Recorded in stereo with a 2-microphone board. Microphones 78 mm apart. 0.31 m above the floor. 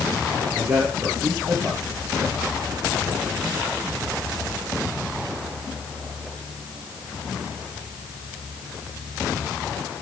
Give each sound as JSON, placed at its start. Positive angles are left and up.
{"t": 0.6, "sound": "a man speaking", "side_deg": -40, "distance_m": 5.5}